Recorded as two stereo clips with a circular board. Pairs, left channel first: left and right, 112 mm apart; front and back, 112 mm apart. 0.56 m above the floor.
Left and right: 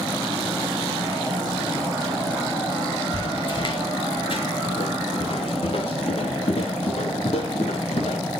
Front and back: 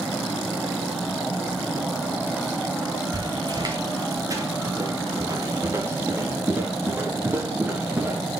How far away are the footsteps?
About 2 m.